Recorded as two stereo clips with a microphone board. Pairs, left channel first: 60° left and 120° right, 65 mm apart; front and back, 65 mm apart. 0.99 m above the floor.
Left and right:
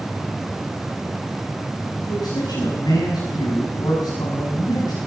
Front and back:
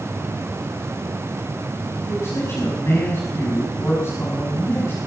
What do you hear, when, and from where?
2.0 s a man speaking: 50° left, 7.5 m